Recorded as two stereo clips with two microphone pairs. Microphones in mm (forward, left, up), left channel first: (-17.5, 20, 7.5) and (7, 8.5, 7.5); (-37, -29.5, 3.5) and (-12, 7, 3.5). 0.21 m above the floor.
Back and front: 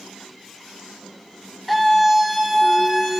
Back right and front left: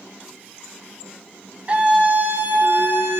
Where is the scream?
65° left, 1.3 m; by 3.2 s 55° left, 2 m.